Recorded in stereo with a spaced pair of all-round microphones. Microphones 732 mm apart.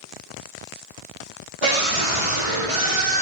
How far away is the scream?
About 3.5 m.